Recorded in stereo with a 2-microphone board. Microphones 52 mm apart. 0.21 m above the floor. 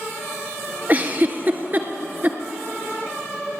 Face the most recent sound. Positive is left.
turn(degrees=-35)  # may be behind; listen again after turning